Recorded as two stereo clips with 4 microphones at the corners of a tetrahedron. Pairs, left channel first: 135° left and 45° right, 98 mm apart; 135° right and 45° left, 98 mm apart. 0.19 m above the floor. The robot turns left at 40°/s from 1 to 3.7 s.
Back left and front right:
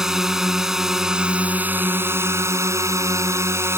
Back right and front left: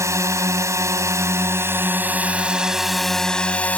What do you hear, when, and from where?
0.0 s a drone: 35° left; by 3.8 s 75° right